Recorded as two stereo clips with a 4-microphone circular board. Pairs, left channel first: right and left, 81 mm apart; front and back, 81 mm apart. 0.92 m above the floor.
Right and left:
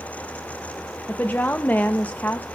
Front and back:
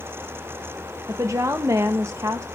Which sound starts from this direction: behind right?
A woman speaking, at 1.1 s.